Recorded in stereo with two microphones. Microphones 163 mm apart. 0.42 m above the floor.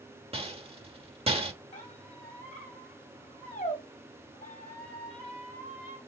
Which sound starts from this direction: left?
A squeak, at 1.7 s.